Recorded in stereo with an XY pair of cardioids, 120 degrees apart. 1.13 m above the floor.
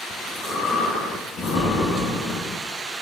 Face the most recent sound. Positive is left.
turn(degrees=60)